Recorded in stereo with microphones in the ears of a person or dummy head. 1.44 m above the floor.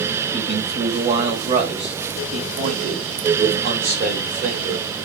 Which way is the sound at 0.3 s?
25° right (ahead or behind).